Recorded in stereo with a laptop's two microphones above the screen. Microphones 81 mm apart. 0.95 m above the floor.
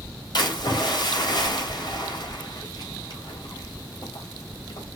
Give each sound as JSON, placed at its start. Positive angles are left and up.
{"t": 0.3, "sound": "a splash", "side_deg": 65, "distance_m": 3.5}